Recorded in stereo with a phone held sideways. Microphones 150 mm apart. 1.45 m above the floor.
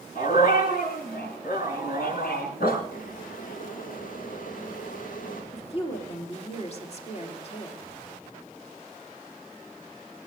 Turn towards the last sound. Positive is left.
turn(degrees=45)  # may be behind; listen again after turning